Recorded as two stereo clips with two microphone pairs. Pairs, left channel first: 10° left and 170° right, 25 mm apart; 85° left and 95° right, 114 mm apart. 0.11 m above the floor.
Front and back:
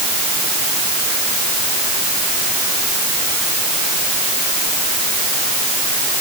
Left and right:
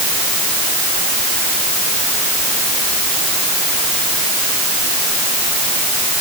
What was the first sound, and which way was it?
Only background noise.